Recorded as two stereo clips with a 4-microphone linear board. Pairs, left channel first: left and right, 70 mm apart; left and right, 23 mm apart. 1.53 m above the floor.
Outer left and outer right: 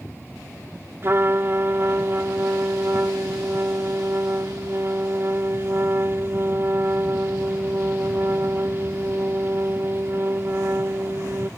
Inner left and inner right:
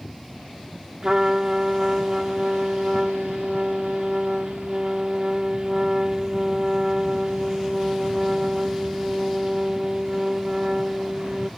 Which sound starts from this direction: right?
A trumpet, at 1.0 s.